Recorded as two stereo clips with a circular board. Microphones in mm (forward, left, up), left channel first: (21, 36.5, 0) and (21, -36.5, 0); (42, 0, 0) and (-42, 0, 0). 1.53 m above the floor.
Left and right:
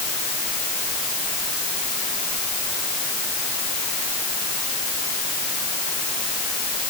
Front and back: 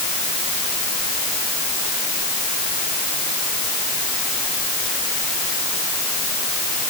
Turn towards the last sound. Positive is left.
No sound to turn to.